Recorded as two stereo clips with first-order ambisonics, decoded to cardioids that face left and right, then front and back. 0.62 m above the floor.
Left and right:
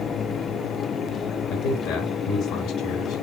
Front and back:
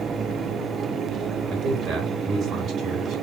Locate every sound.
1.5 s a man speaking: 125° left, 3 m